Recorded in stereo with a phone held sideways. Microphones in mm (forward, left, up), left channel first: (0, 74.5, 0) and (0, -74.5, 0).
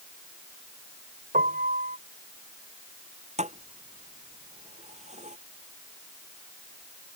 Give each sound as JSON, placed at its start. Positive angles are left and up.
{"t": 1.3, "sound": "a piano", "side_deg": -70}
{"t": 3.4, "sound": "a thud", "side_deg": -50}